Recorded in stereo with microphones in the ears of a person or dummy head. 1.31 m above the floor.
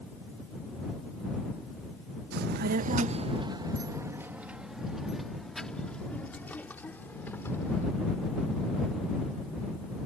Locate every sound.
2.3 s a child speaking: 65° right (ahead or behind); by 7.8 s 15° left (ahead or behind)